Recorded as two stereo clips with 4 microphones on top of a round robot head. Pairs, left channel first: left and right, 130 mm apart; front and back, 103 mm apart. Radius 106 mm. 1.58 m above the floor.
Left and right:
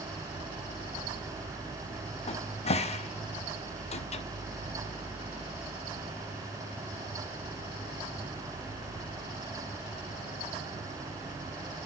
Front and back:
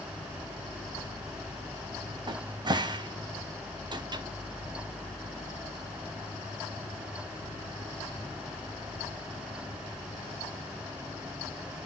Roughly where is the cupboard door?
Behind left.